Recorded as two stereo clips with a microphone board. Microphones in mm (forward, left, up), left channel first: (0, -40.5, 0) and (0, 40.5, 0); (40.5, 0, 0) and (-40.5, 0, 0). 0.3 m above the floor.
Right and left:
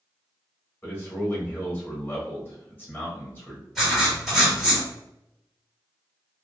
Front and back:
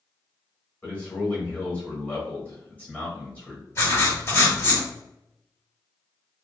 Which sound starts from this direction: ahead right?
A man speaking, at 0.8 s.